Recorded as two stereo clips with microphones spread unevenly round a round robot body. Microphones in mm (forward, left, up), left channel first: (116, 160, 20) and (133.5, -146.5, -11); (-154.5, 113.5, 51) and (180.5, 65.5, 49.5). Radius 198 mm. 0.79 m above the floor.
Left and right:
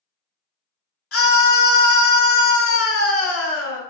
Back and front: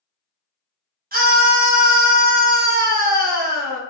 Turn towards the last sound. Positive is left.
turn(degrees=50)